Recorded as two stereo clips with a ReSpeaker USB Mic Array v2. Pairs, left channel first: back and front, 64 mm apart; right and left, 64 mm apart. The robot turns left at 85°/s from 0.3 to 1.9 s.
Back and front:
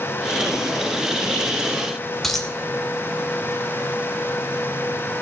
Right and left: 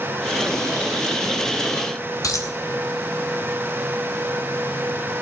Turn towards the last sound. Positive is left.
turn(degrees=-95)